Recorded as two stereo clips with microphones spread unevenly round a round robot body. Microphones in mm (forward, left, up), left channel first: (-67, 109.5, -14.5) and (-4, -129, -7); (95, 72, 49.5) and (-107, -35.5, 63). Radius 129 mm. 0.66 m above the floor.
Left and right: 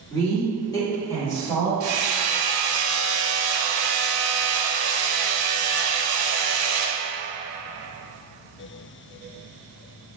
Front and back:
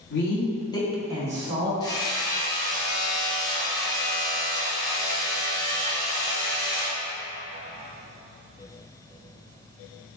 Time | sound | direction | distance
0.1 | a woman speaking | 30° left | 1.5 m
1.8 | hammering | 45° right | 0.7 m